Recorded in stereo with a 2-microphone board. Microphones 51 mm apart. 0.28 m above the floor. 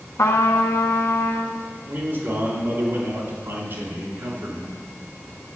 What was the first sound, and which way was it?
A trumpet, 80° left.